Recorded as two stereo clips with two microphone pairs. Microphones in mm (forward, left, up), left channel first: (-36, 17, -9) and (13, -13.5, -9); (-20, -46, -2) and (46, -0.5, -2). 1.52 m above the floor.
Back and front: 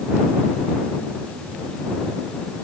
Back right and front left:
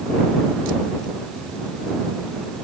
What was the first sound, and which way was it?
Only background noise.